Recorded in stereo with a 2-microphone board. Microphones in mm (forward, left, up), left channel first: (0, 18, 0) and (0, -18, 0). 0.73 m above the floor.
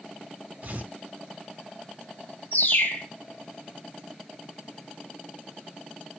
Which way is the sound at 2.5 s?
65° left (ahead or behind).